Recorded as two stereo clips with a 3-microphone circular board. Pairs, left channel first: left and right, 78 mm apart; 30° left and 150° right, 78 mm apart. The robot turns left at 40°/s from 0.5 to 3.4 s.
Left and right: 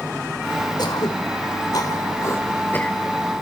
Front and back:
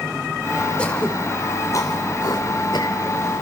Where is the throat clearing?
105° left, 3 m; by 3.0 s 20° left, 3 m.